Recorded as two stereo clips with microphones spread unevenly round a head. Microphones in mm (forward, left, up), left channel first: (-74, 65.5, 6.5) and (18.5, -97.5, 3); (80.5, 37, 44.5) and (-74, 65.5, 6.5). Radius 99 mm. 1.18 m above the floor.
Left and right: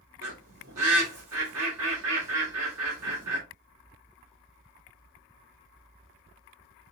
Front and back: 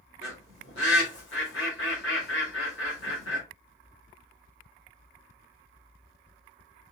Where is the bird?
35° right, 2.5 m.